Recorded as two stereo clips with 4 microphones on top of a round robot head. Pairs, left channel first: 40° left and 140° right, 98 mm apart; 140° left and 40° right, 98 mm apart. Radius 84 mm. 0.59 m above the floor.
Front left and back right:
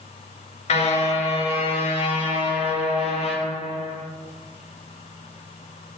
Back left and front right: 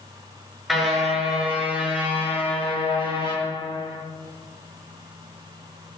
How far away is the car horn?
About 4 m.